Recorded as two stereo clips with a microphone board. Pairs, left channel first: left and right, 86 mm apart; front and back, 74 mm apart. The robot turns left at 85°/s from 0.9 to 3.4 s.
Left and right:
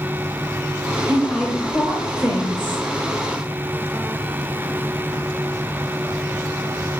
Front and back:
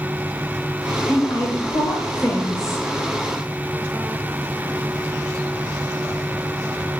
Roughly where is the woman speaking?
Ahead left.